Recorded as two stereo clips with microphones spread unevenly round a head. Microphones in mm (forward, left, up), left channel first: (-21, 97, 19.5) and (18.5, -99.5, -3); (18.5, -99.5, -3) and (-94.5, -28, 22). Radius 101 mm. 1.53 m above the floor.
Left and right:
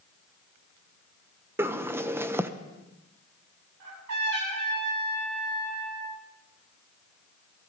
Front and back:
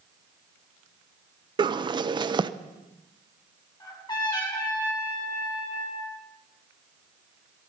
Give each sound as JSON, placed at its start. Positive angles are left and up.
{"t": 1.6, "sound": "a bird", "azimuth_deg": -160, "distance_m": 0.7}
{"t": 3.8, "sound": "a trumpet", "azimuth_deg": -85, "distance_m": 7.5}